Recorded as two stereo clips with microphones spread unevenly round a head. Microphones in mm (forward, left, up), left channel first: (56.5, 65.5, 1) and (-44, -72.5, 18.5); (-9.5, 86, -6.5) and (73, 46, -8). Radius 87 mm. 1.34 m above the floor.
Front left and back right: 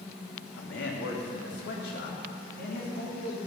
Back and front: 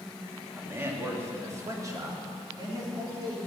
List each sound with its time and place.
0.6 s a man speaking: 40° left, 2.5 m; by 3.4 s 20° left, 4.5 m